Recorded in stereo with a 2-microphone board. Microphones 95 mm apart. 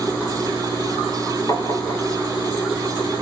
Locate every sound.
1.5 s tapping: 40° left (ahead or behind), 3 m